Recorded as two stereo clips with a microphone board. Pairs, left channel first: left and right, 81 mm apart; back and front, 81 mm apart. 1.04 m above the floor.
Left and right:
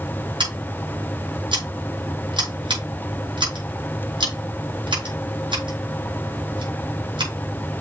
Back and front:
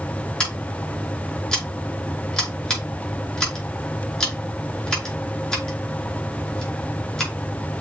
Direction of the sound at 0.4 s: 100° right.